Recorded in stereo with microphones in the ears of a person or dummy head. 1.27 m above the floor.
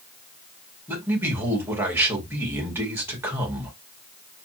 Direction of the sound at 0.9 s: 10° right (ahead or behind).